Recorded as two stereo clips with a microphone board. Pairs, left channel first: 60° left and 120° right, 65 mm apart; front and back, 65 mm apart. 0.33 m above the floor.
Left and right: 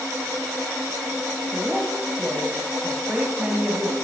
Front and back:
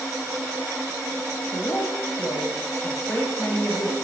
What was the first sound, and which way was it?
A woman speaking, 45° right.